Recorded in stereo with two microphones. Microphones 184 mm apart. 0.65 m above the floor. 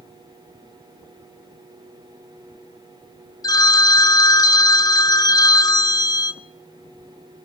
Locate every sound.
3.4 s a phone ringing: 20° left (ahead or behind), 0.6 m